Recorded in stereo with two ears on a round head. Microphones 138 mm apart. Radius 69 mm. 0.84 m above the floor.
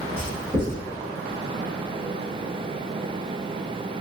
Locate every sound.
0.2 s writing: 10° right (ahead or behind), 1.8 m